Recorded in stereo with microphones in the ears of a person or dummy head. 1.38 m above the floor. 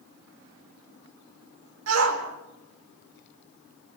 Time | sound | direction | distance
1.9 | a shout | 85° right | 4 m